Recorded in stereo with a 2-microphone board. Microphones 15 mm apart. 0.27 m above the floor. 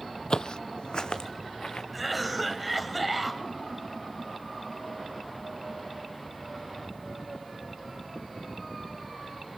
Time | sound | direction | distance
0.3 | footsteps | 70° left (ahead or behind) | 0.5 m
1.9 | a cough | 5° right (ahead or behind) | 1.2 m